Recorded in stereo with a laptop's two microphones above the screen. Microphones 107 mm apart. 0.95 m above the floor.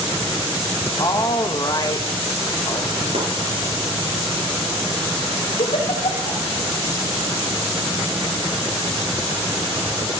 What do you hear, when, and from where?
1.0 s a woman speaking: 40° left (ahead or behind), 1.2 m
3.1 s chopping: 75° right (ahead or behind), 4 m
5.6 s a giggle: 75° left (ahead or behind), 2 m